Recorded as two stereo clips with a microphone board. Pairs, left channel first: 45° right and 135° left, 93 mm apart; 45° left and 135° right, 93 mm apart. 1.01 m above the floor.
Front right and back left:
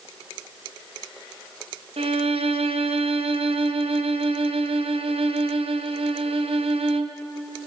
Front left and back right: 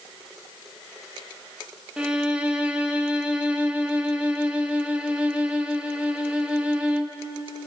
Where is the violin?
145° left, 0.6 m.